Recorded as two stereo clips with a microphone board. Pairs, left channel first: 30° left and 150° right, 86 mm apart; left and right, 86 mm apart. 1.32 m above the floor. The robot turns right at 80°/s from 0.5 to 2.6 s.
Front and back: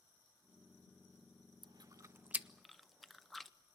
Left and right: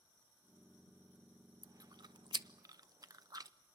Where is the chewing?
135° right, 0.6 m; by 3.5 s 60° right, 0.6 m.